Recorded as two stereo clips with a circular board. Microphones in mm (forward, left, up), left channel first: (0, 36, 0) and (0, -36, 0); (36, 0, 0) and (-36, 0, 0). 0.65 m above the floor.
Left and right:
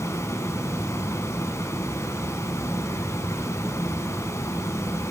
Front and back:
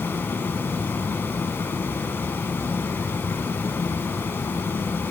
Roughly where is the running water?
Ahead left.